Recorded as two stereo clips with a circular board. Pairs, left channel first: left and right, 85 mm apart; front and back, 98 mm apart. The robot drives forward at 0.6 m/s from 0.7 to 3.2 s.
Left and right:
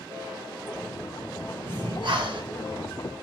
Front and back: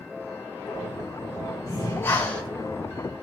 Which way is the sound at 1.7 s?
55° right.